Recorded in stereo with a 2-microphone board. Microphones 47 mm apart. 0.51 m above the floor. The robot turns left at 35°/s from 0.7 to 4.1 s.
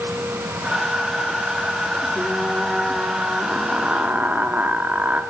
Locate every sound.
2.1 s frying: 20° left, 1.3 m; by 5.2 s 50° right, 1.3 m